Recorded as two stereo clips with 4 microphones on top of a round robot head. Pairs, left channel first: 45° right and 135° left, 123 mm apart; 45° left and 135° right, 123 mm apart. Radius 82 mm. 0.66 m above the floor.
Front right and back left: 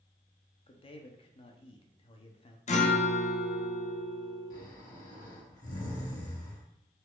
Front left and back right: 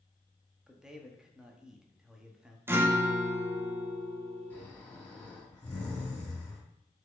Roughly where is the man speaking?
Ahead right.